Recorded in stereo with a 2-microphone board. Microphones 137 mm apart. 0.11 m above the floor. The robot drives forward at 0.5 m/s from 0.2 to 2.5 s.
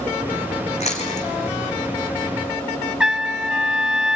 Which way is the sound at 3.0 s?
5° right (ahead or behind).